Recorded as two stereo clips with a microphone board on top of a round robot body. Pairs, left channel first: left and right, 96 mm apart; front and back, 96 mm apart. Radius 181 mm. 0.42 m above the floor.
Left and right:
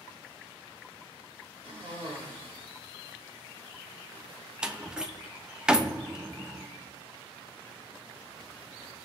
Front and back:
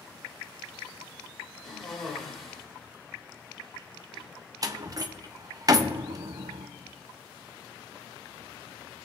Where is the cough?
90° right, 5 m.